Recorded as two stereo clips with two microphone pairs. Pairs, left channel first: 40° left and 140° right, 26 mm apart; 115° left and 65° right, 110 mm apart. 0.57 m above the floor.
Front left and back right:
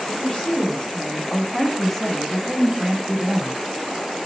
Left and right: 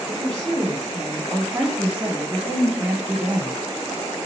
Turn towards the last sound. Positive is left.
turn(degrees=-140)